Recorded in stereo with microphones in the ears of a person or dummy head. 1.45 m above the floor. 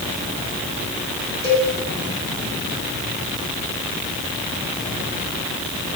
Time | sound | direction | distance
1.4 | a cowbell | 85° left | 4.5 m